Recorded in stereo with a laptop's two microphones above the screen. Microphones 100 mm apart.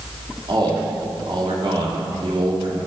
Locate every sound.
0.5 s a man speaking: 55° right (ahead or behind), 3 m